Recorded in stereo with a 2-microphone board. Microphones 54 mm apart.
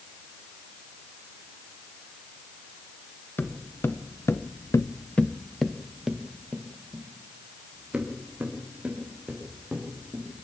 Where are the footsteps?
45° left (ahead or behind), 2 m; by 10.2 s 25° right (ahead or behind), 8 m.